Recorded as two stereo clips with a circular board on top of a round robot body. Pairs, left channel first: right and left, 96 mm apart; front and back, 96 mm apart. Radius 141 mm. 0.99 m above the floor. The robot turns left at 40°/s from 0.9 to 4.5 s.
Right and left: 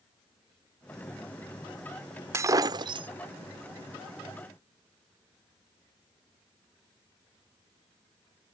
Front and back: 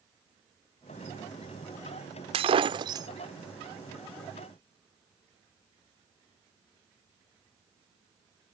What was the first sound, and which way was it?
Breaking glass, 155° left.